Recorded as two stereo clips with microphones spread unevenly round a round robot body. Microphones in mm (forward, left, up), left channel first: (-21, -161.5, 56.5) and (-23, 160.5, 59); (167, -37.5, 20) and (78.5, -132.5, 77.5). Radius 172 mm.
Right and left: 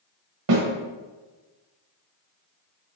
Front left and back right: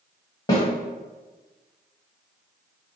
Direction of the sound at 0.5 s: 85° left.